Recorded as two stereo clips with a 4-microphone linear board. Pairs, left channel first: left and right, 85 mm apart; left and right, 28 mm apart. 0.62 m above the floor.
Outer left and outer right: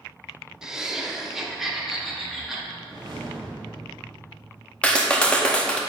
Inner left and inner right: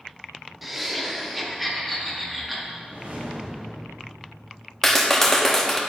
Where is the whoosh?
50° right (ahead or behind), 2 m.